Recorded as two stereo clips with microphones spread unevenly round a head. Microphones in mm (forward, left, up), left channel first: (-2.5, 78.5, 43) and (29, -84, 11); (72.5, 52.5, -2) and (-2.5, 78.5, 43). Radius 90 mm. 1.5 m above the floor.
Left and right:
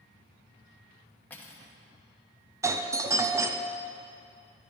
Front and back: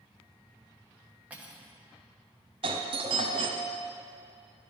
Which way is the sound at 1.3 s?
165° left.